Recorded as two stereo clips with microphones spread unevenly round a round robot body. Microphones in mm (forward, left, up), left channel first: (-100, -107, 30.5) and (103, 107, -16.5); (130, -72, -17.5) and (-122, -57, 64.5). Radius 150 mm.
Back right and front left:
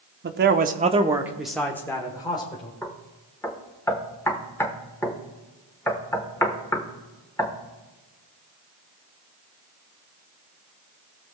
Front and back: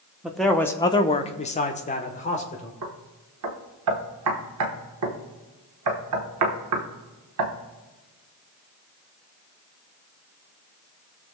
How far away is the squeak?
I don't hear a squeak.